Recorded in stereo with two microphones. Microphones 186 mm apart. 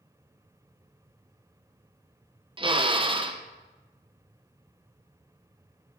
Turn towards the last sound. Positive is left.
turn(degrees=-30)  # may be behind; listen again after turning